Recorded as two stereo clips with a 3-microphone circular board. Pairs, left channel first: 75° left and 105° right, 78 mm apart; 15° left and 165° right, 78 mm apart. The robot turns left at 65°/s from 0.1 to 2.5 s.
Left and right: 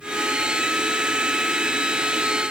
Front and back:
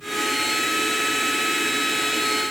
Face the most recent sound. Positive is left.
No sound to turn to.